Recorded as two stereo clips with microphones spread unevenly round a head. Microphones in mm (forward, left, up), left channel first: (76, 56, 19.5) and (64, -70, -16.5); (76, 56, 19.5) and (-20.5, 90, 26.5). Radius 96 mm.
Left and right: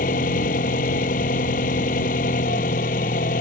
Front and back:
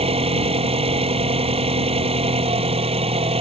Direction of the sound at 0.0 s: 130° left.